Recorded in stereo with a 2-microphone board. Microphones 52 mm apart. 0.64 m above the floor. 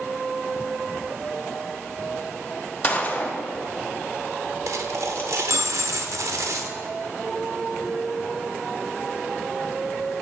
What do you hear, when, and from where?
2.8 s a gunshot: 30° left (ahead or behind), 1.0 m
4.7 s a dropped coin: 80° right, 0.6 m